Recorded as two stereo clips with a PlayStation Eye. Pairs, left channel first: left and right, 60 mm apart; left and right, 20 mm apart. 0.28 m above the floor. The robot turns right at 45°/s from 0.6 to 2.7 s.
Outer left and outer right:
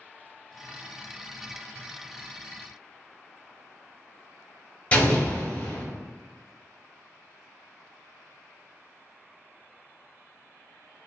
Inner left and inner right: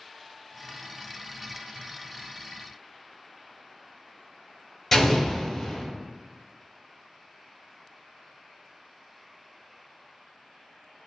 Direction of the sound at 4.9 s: 25° left (ahead or behind).